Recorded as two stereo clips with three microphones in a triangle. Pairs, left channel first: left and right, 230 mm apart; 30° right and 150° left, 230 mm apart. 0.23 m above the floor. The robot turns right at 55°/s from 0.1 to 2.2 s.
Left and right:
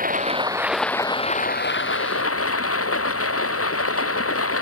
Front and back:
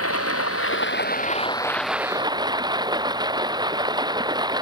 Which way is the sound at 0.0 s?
35° right.